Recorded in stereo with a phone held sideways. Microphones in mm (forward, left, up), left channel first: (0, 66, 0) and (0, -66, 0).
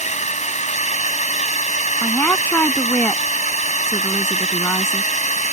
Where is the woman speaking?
15° left (ahead or behind).